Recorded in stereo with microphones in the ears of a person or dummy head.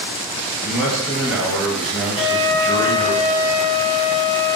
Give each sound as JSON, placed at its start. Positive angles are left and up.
{"t": 0.6, "sound": "a man speaking", "side_deg": -5, "distance_m": 0.7}
{"t": 2.1, "sound": "a flute", "side_deg": -60, "distance_m": 1.2}